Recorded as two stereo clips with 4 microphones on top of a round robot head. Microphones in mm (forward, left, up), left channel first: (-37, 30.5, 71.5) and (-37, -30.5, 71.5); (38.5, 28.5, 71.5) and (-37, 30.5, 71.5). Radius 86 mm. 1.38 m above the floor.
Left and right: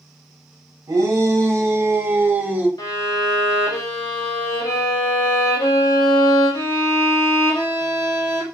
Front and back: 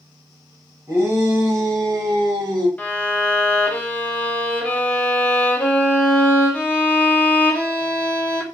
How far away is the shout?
About 1.5 m.